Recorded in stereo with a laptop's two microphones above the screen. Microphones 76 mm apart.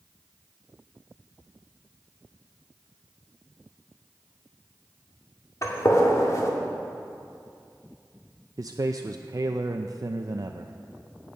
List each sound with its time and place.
5.6 s a gunshot: 45° left (ahead or behind), 2 m
8.6 s a man speaking: 50° right (ahead or behind), 0.5 m